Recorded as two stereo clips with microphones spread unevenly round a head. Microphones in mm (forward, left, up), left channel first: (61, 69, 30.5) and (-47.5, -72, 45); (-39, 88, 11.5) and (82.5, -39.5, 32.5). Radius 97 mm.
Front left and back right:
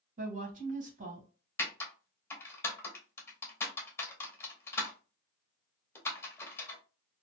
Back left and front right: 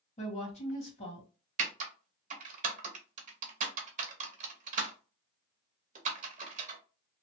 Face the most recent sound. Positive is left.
turn(degrees=-25)